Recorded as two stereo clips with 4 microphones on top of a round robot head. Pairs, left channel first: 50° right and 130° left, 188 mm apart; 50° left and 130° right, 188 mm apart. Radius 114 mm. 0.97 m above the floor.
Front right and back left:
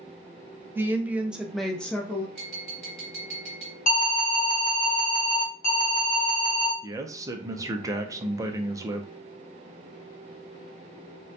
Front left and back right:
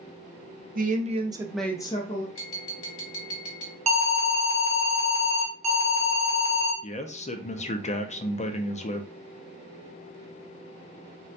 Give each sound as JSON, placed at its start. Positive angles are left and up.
{"t": 0.8, "sound": "a woman speaking", "azimuth_deg": -155, "distance_m": 0.9}
{"t": 2.4, "sound": "tapping", "azimuth_deg": 35, "distance_m": 1.6}
{"t": 3.9, "sound": "an alarm", "azimuth_deg": -85, "distance_m": 1.0}
{"t": 6.8, "sound": "a man speaking", "azimuth_deg": 70, "distance_m": 0.6}